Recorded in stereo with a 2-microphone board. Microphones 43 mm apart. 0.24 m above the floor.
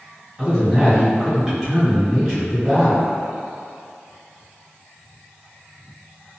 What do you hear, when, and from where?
0.4 s a man speaking: 10° right (ahead or behind), 1.9 m